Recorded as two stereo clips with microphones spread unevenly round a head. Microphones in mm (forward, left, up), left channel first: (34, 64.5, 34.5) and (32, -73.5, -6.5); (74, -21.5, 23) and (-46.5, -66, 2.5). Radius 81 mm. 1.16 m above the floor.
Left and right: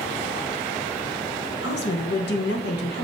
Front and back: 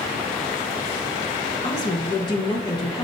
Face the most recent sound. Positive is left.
turn(degrees=85)